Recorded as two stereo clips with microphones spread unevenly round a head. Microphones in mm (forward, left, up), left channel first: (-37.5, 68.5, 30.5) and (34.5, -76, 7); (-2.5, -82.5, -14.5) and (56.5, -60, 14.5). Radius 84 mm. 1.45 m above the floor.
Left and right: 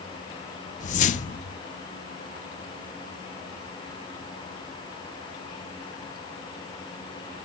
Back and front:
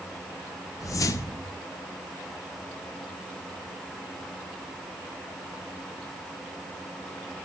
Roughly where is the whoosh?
Behind.